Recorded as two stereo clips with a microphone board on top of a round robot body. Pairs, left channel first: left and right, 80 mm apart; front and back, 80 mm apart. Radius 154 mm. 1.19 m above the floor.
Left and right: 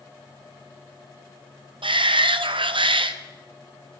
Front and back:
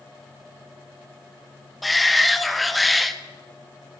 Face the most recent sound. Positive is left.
turn(degrees=-90)